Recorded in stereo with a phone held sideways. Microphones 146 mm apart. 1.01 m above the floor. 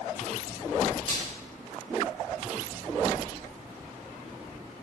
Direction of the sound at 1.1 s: 35° left (ahead or behind).